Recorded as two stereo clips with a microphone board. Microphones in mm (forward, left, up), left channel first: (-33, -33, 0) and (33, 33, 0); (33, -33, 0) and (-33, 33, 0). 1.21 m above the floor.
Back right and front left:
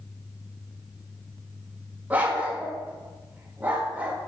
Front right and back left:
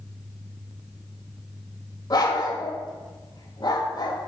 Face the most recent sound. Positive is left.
turn(degrees=-25)